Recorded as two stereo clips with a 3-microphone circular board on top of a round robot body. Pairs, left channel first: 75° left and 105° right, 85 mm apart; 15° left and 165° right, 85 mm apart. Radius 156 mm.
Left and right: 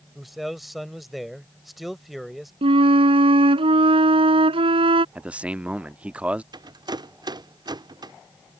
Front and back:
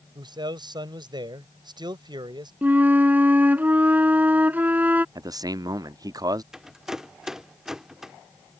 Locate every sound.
0.1 s a man speaking: 165° left
2.6 s a flute: 90° right
5.2 s a man speaking: 175° right
6.5 s a rattle: 80° right